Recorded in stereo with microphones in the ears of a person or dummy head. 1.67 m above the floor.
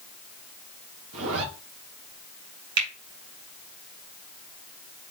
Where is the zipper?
75° right (ahead or behind), 1.3 m.